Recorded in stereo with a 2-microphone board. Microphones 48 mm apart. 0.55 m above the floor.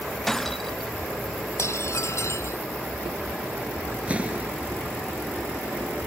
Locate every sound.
0.3 s breaking glass: 5° left (ahead or behind)
1.6 s dishes clattering: 70° left (ahead or behind)
4.1 s an explosion: 25° right (ahead or behind)